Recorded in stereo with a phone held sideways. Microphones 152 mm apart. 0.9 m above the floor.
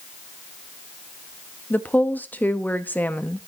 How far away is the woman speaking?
About 0.8 m.